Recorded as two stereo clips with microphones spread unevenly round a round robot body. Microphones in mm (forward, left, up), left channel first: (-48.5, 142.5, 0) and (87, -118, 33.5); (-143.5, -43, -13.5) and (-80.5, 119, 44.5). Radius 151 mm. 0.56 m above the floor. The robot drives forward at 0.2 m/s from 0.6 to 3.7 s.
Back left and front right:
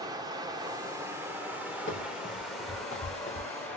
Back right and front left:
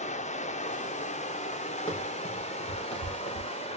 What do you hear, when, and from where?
0.0 s running water: 145° right, 0.9 m; by 3.8 s 160° right, 1.4 m
1.9 s running footsteps: 175° right, 5 m; by 3.5 s 170° right, 4.5 m